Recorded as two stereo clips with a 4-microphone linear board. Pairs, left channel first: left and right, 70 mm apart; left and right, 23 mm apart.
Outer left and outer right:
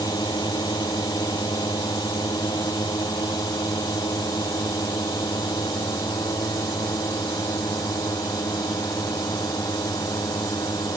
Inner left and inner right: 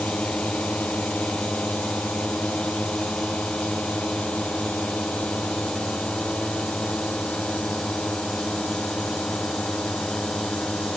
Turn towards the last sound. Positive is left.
turn(degrees=65)  # may be behind; listen again after turning